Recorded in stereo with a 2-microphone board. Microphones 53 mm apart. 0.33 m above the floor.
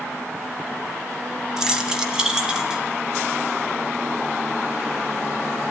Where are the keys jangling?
10° right (ahead or behind), 1.6 m; by 2.8 s 15° right (ahead or behind), 2.5 m.